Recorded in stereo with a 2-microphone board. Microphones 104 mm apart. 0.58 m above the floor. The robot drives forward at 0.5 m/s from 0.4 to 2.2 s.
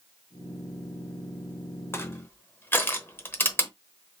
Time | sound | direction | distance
1.9 | crushing | 25° left (ahead or behind) | 0.8 m